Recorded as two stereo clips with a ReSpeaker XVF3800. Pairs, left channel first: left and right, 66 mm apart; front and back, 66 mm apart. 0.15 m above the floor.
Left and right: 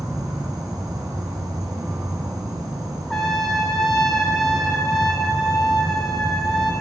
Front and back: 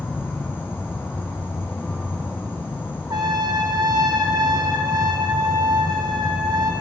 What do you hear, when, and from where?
0.0 s an insect: 60° right, 3 m
3.1 s a trumpet: 175° left, 1.1 m